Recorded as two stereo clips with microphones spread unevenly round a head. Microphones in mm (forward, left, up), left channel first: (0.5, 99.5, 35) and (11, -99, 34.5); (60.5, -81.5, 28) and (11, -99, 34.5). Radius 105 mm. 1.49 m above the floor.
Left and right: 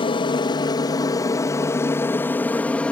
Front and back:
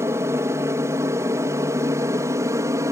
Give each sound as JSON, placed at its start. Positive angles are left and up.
{"t": 0.0, "sound": "an aircraft", "azimuth_deg": 160}